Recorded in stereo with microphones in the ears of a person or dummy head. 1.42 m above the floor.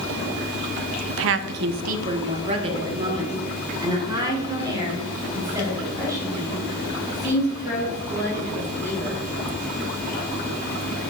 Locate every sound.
1.1 s a woman speaking: 80° right, 0.6 m; by 9.2 s 15° right (ahead or behind), 6 m